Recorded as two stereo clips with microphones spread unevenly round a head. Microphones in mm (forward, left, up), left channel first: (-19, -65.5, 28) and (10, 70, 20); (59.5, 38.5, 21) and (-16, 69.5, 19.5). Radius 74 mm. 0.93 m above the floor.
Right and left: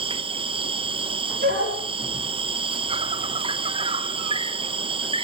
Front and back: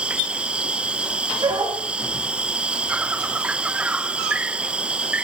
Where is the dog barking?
115° left, 9 m.